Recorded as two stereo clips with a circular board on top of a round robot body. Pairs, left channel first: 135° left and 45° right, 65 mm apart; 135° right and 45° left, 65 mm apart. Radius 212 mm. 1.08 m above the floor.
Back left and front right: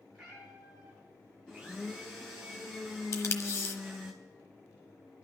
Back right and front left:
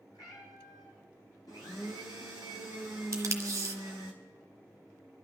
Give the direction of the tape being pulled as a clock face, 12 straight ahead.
9 o'clock.